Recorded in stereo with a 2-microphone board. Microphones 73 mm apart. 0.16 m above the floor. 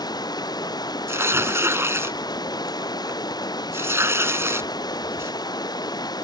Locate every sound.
0.0 s running water: 65° left (ahead or behind)
1.1 s tearing paper: 35° right (ahead or behind)